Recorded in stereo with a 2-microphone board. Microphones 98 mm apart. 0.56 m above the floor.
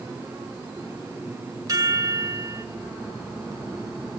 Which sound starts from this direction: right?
A chime, at 1.7 s.